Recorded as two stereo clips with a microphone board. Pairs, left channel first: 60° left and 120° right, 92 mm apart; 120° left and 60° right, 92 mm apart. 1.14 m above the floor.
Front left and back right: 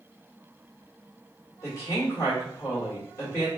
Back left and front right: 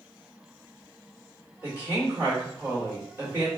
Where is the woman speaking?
5° left, 1.8 m.